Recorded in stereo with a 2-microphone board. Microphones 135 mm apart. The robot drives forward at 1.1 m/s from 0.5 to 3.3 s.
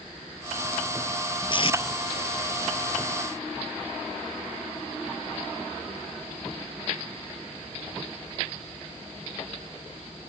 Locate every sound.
1.5 s tape being pulled: 40° left (ahead or behind); by 1.8 s 50° left (ahead or behind)